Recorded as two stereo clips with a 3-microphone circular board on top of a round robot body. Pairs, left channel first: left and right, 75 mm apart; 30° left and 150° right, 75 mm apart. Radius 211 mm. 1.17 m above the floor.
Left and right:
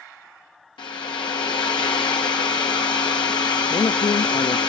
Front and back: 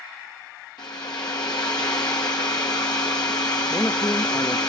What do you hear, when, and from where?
0.8 s a hair dryer: 70° left, 0.8 m
3.7 s a man speaking: 85° left, 0.6 m